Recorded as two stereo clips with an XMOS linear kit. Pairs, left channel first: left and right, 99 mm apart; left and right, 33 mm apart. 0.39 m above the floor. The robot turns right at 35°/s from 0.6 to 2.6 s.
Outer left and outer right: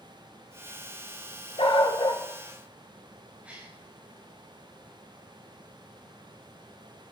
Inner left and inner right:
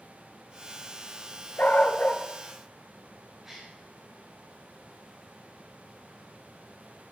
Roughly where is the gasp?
Centre.